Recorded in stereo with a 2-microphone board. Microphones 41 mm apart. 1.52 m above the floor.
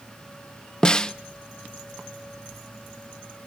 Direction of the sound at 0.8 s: 20° left (ahead or behind).